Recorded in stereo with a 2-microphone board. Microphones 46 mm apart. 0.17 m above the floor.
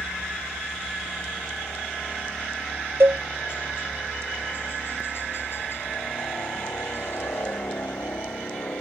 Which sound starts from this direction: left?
A helicopter, at 0.0 s.